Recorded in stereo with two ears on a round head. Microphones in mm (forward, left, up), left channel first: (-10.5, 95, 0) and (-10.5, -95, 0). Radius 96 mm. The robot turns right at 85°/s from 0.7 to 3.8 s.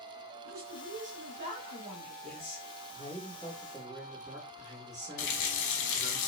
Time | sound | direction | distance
0.5 | a woman speaking | 120° right | 1.5 m
2.2 | a man speaking | 70° left | 2 m
5.2 | a running tap | 55° left (ahead or behind) | 0.8 m